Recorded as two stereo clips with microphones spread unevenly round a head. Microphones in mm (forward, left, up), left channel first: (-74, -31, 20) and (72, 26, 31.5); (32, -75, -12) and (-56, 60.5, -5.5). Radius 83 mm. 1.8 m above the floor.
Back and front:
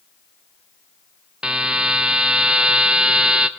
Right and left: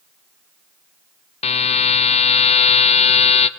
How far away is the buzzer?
About 0.7 m.